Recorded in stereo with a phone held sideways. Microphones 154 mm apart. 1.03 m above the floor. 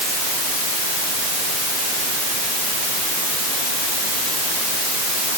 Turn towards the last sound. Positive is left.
No sound to turn to.